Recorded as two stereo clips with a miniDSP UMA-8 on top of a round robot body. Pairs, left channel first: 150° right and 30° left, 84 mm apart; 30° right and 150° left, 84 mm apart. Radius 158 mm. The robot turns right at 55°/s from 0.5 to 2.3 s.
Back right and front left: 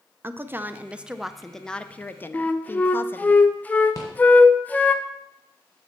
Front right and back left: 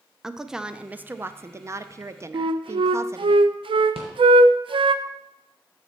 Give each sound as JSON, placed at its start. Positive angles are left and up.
{"t": 0.2, "sound": "a woman speaking", "azimuth_deg": 70, "distance_m": 0.6}
{"t": 2.3, "sound": "a flute", "azimuth_deg": 140, "distance_m": 0.6}
{"t": 4.0, "sound": "a rattle", "azimuth_deg": 160, "distance_m": 1.4}